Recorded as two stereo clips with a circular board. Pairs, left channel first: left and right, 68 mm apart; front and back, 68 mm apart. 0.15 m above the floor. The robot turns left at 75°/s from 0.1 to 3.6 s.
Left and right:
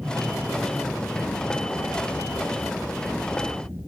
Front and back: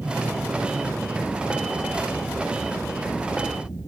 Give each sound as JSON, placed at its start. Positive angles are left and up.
{"t": 0.0, "sound": "an aircraft", "azimuth_deg": -135}